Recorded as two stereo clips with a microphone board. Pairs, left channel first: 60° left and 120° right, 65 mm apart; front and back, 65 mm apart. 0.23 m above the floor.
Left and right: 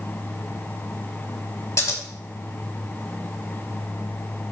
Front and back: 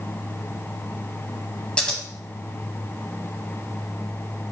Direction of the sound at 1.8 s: 65° left.